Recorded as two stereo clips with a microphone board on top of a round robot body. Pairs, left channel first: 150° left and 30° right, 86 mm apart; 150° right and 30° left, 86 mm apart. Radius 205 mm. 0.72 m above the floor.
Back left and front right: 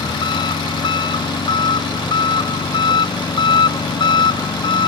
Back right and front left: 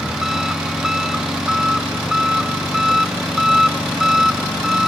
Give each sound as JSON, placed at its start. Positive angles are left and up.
{"t": 0.0, "sound": "an engine running", "azimuth_deg": 115}